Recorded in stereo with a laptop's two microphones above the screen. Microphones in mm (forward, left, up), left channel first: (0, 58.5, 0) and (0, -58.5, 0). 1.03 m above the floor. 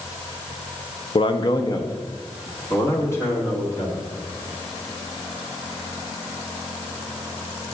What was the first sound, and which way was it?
A man speaking, 50° left (ahead or behind).